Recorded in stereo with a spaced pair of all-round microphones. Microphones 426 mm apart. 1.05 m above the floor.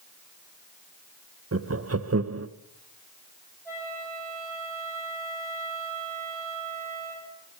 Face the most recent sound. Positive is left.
turn(degrees=5)  # may be behind; listen again after turning